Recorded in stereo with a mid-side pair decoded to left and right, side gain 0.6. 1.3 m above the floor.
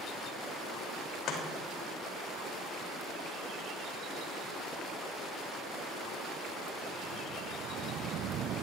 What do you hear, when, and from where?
1.3 s chopping: 60° left, 3.5 m